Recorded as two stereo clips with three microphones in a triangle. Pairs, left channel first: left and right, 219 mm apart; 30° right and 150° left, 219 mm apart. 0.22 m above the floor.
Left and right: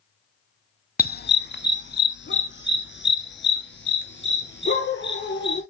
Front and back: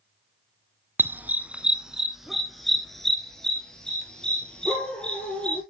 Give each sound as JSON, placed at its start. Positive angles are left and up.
{"t": 1.0, "sound": "a dog barking", "azimuth_deg": 75, "distance_m": 0.6}